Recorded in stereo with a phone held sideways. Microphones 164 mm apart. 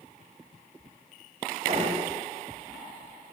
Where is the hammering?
45° right (ahead or behind), 4.5 m.